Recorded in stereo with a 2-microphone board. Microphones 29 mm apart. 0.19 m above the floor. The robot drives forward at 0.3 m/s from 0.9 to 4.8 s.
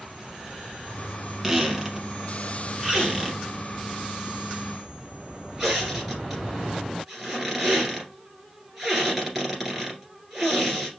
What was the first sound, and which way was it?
A squeak, 10° right (ahead or behind).